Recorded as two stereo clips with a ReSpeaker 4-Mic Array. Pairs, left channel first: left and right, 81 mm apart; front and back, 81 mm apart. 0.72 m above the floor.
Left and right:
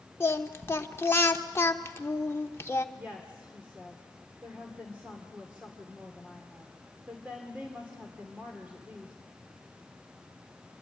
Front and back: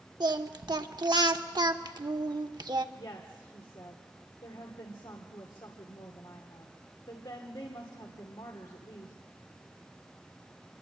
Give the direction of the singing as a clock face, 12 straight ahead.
7 o'clock.